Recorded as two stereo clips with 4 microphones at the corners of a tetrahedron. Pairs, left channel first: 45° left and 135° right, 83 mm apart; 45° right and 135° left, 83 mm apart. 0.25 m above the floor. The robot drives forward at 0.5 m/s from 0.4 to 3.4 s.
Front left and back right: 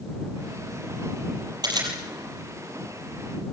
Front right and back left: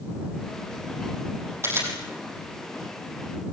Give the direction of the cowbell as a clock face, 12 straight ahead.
No cowbell in this recording.